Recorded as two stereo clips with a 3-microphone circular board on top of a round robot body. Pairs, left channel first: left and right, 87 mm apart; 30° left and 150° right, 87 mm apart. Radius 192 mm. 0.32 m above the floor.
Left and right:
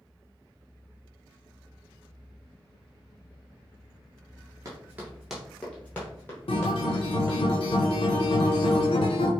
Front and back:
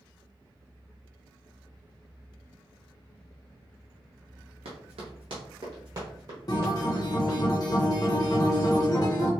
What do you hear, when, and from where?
4.7 s running footsteps: 145° right, 0.6 m; by 7.4 s 145° left, 1.8 m
6.5 s a guitar: 75° left, 0.6 m